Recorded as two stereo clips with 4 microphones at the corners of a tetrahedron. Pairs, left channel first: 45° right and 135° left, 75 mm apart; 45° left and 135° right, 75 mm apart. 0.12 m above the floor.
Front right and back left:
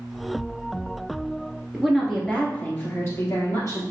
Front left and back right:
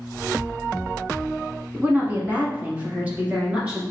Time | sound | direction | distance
1.7 | a woman speaking | 150° right | 1.1 m